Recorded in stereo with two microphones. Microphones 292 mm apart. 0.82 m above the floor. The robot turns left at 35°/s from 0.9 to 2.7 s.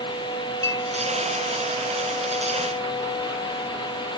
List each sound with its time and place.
0.6 s a clink: 55° right (ahead or behind), 6 m